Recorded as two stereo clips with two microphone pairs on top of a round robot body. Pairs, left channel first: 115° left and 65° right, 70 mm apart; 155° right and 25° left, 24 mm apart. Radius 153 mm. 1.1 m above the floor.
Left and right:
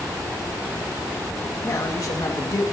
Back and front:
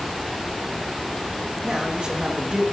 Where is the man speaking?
75° left, 1.6 m.